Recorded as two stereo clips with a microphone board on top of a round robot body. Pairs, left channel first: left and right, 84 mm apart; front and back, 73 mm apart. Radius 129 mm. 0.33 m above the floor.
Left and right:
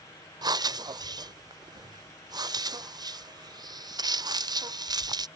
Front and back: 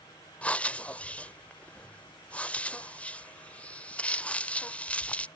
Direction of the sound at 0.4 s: 70° right.